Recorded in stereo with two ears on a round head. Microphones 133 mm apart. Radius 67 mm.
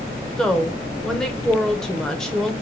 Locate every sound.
0.4 s a woman speaking: 5° left (ahead or behind), 0.7 m